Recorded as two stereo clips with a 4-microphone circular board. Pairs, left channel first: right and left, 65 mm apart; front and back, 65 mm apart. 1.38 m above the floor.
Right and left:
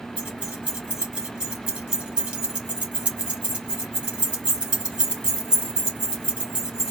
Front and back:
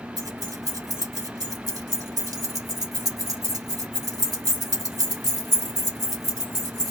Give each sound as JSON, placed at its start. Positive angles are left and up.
{"t": 0.2, "sound": "keys jangling", "azimuth_deg": 165, "distance_m": 2.0}